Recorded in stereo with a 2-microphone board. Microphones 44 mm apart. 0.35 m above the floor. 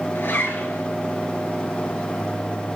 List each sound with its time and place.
0.1 s a zipper: 55° left (ahead or behind), 2.5 m